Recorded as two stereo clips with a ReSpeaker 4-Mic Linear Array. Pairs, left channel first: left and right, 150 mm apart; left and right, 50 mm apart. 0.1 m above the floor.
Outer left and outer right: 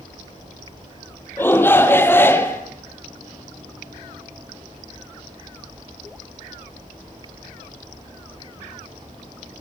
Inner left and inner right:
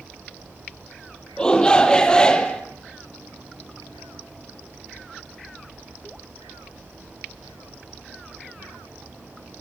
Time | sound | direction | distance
1.4 | a shout | 15° left (ahead or behind) | 2.5 m